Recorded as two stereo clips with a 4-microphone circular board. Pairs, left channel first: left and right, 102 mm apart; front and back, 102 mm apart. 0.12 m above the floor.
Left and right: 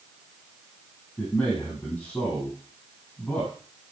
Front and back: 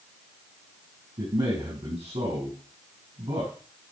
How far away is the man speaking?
About 4.5 m.